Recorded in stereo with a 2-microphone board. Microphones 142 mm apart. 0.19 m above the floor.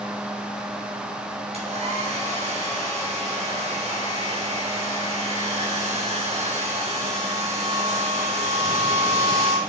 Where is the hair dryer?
55° right (ahead or behind), 4 m.